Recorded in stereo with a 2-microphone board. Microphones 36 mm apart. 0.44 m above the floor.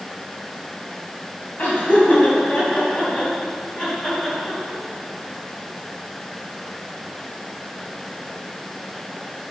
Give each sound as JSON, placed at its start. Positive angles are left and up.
{"t": 1.6, "sound": "laughter", "side_deg": 50, "distance_m": 3.0}